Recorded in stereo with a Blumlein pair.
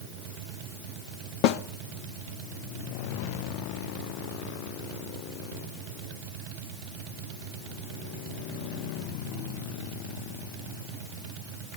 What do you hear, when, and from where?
1.4 s a snare drum: 45° left, 0.5 m